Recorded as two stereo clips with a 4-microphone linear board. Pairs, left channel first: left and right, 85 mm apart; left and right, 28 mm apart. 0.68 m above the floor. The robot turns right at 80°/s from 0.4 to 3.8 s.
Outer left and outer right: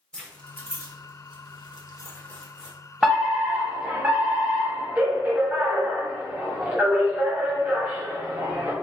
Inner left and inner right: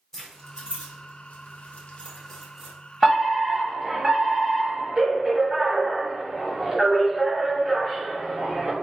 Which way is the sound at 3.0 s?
5° right (ahead or behind).